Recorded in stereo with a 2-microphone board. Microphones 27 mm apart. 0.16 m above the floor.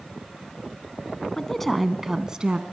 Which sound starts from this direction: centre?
A woman speaking, at 1.4 s.